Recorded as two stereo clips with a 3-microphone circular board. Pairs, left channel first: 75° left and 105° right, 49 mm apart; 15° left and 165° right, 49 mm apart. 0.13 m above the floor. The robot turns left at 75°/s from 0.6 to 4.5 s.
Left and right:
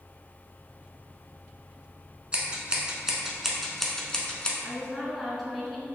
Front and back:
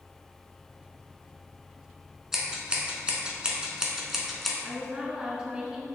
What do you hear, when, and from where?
2.3 s scissors: 100° right, 0.8 m; by 4.5 s 95° left, 0.8 m
4.6 s a woman speaking: 155° left, 1.2 m